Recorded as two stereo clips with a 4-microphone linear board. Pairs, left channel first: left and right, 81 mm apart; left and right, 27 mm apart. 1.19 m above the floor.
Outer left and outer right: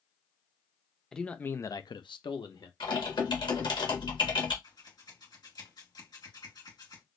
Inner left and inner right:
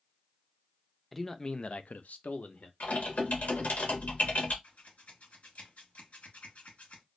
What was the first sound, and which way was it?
A man speaking, 5° left (ahead or behind).